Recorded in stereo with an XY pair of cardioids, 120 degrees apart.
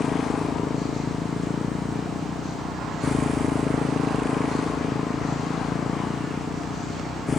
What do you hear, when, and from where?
0.0 s a motorcycle: 30° left